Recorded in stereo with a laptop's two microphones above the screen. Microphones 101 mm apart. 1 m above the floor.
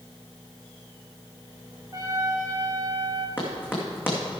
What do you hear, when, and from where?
1.9 s a trumpet: 35° right (ahead or behind), 1.4 m
3.4 s running footsteps: 20° left (ahead or behind), 2.5 m